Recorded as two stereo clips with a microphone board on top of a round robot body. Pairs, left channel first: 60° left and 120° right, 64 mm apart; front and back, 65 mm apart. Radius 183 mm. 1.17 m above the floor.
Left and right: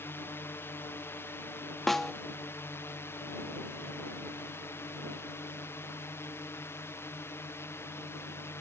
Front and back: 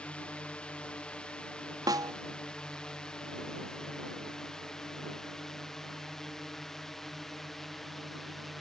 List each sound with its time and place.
0.0 s a drone: 60° left; by 8.6 s 85° left
1.9 s a snare drum: 145° left